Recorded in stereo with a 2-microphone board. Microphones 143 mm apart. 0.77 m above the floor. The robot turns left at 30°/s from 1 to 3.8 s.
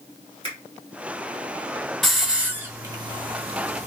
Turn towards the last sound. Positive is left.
turn(degrees=-50)  # may be behind; listen again after turning